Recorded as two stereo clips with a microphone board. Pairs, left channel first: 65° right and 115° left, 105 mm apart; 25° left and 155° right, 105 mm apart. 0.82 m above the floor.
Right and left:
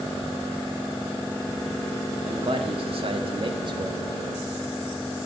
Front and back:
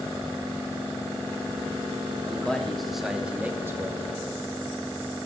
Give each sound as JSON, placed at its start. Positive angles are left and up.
{"t": 2.2, "sound": "a man speaking", "azimuth_deg": 105, "distance_m": 2.5}